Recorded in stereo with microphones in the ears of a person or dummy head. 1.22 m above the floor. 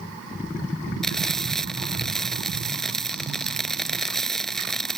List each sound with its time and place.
1.0 s frying: centre (ahead or behind)